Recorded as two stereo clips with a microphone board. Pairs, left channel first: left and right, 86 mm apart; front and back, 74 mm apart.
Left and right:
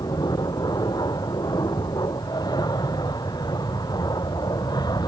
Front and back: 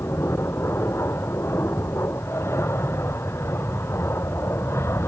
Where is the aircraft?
50° left.